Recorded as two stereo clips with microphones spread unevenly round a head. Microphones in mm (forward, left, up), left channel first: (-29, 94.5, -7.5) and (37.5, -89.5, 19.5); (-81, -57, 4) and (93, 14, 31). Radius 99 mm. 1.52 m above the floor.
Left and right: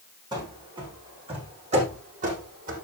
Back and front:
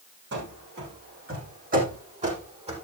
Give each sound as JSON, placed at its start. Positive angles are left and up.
{"t": 0.3, "sound": "running footsteps", "azimuth_deg": -5, "distance_m": 5.0}